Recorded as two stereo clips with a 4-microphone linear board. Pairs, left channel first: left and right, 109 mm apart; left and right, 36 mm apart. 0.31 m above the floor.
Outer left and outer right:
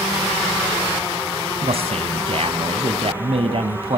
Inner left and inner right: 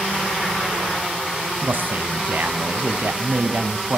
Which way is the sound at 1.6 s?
65° right (ahead or behind).